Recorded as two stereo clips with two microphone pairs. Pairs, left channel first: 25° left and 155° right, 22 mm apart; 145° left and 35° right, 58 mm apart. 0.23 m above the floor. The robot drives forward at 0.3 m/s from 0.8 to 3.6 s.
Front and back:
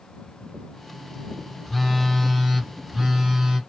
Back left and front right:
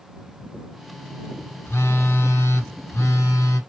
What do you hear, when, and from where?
1.6 s a phone buzzing: 110° left, 0.8 m; by 3.6 s 140° left, 1.2 m